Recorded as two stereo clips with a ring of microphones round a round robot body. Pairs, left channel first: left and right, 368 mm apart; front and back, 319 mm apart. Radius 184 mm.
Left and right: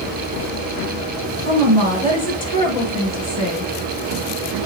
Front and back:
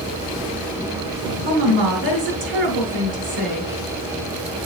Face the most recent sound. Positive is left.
turn(degrees=165)